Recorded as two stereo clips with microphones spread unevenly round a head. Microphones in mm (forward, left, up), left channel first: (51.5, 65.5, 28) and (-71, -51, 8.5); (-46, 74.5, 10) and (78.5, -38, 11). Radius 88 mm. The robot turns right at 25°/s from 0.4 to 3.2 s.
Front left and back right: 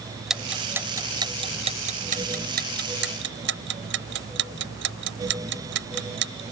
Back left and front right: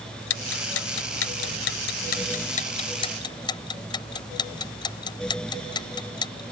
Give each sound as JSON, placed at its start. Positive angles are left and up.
{"t": 0.3, "sound": "ticking", "azimuth_deg": 135}